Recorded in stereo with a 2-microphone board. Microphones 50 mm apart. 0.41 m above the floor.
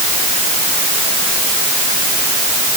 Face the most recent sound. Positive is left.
No sound to turn to.